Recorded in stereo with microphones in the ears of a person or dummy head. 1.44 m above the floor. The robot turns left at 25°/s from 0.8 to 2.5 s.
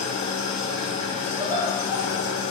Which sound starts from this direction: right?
Laughter, at 1.4 s.